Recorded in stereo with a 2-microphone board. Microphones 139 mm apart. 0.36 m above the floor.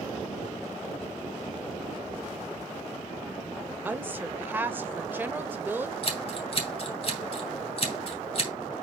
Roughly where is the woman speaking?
Centre.